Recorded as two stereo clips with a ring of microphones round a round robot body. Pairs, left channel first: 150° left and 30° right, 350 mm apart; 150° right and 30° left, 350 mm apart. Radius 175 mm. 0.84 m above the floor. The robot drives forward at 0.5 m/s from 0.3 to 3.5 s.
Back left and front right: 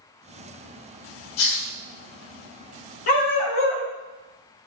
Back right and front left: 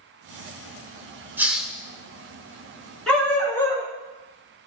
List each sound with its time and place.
1.4 s a hiss: 115° left, 1.1 m; by 1.7 s 125° left, 1.2 m
3.1 s a dog barking: 120° left, 3 m; by 3.9 s 125° left, 3 m